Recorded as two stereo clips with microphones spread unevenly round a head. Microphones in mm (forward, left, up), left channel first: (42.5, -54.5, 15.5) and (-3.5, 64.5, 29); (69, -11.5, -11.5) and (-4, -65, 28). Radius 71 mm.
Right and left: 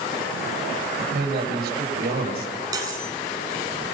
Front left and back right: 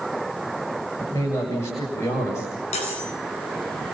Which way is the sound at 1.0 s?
110° left.